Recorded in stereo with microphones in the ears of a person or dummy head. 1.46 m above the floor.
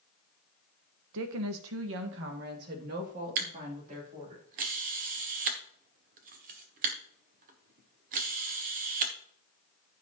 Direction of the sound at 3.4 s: 40° right (ahead or behind).